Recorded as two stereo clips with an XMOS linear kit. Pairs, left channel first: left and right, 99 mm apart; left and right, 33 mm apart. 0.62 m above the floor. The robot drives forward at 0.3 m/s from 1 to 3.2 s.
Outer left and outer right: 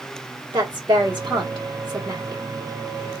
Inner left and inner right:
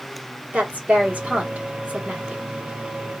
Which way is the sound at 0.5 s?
50° right (ahead or behind).